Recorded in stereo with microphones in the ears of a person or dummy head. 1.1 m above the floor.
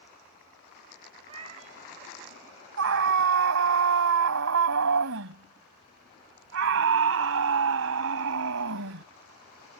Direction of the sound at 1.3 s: 30° right (ahead or behind).